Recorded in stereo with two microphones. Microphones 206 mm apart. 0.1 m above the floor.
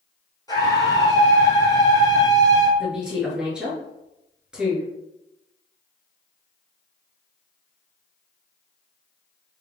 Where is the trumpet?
No trumpet in this recording.